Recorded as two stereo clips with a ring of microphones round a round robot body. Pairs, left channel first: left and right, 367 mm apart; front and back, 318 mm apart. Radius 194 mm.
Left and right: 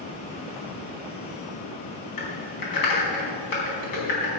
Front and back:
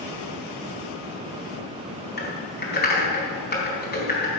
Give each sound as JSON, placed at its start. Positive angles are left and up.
{"t": 2.2, "sound": "typing on a keyboard", "azimuth_deg": 60, "distance_m": 4.0}